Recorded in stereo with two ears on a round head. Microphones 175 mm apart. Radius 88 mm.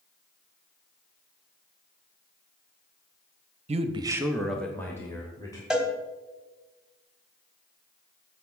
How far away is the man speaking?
About 0.7 m.